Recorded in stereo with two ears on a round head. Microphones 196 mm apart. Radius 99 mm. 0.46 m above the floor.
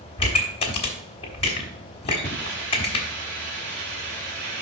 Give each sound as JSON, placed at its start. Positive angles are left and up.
{"t": 0.2, "sound": "a pop", "side_deg": 25, "distance_m": 1.3}
{"t": 2.2, "sound": "a hiss", "side_deg": -50, "distance_m": 2.0}